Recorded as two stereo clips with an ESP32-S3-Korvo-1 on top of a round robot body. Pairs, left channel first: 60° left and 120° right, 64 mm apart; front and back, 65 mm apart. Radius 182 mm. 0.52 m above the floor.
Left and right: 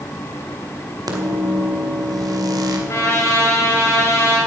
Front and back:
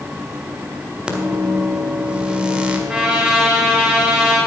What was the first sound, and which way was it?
A microwave, 105° right.